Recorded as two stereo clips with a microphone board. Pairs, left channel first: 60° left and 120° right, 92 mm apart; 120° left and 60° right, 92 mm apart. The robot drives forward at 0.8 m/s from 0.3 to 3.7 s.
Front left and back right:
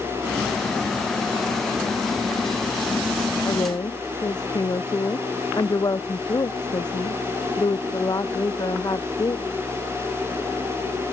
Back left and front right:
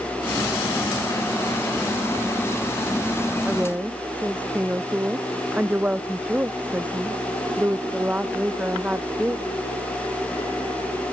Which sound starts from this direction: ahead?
A woman speaking, at 3.5 s.